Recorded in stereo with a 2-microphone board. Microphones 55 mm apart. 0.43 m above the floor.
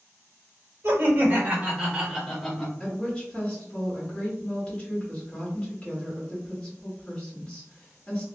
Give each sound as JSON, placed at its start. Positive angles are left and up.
{"t": 0.8, "sound": "laughter", "side_deg": -45, "distance_m": 1.5}
{"t": 2.8, "sound": "a woman speaking", "side_deg": 20, "distance_m": 1.4}